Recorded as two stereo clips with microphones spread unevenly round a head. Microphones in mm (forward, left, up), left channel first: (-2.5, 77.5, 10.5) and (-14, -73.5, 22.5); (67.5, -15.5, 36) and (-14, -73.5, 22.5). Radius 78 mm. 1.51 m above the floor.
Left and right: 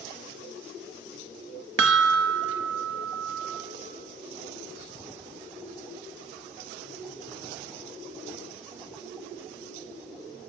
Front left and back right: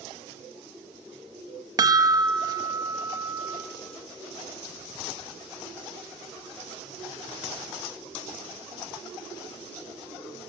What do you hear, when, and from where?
1.8 s a chime: 90° right, 1.8 m